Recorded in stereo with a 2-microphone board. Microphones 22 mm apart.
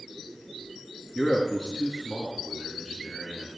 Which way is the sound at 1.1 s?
40° left (ahead or behind).